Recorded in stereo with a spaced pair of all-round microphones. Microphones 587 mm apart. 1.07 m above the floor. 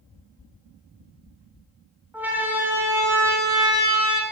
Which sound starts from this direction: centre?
A siren, at 2.1 s.